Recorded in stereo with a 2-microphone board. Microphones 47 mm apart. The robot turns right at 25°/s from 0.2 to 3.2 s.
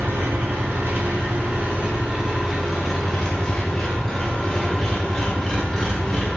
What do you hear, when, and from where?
0.0 s an engine running: 65° right, 0.7 m; by 6.4 s 10° left, 0.7 m